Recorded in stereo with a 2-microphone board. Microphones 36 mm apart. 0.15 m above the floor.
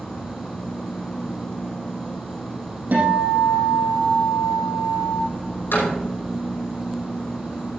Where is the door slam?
75° left (ahead or behind), 5 m.